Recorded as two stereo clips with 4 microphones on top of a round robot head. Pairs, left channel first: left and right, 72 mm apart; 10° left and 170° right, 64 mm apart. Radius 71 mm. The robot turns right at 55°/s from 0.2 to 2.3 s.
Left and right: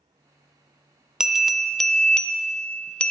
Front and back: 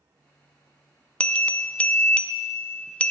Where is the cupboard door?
No cupboard door in this recording.